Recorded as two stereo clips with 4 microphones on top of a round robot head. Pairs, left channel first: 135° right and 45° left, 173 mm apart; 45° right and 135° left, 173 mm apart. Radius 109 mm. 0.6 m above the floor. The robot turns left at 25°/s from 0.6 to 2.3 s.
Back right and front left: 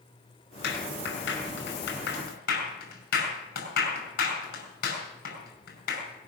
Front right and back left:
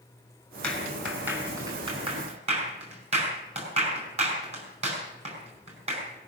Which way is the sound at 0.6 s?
130° right.